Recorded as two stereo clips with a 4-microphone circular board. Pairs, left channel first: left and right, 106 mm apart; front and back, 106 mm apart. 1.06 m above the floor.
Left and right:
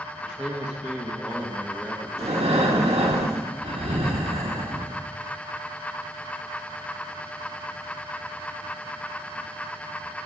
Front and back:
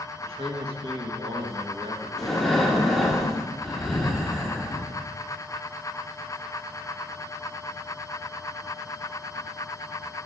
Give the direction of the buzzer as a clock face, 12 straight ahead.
No buzzer in this recording.